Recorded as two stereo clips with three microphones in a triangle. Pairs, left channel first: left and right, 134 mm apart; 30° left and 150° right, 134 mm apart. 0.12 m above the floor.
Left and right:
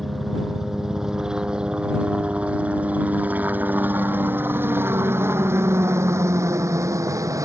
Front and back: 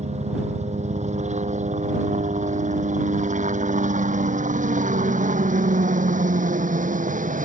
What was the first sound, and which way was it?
A helicopter, straight behind.